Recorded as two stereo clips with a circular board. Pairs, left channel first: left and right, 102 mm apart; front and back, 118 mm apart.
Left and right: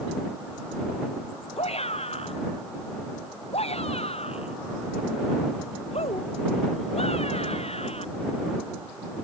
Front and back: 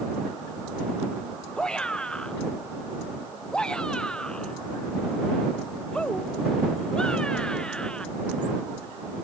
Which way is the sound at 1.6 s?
85° left.